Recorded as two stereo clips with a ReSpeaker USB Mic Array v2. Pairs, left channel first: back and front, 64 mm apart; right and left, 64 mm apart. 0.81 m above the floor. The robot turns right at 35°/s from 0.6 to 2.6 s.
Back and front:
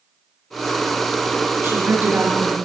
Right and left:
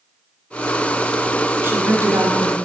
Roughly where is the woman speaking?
Ahead left.